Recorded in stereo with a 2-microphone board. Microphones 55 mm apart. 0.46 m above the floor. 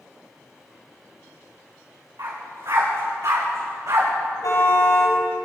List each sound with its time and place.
2.2 s a dog barking: 80° right, 9 m
4.4 s a car horn: 80° left, 7 m